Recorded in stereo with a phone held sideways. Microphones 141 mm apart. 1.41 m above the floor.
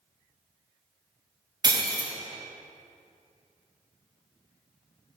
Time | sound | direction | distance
1.6 | breaking glass | 30° right (ahead or behind) | 0.7 m